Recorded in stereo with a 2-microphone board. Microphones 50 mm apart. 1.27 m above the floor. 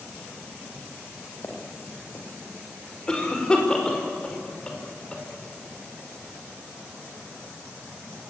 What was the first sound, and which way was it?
Footsteps, 55° left (ahead or behind).